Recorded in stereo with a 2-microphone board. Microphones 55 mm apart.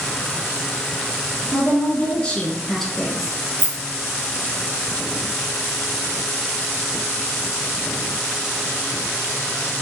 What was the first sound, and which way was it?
A woman speaking, 35° left (ahead or behind).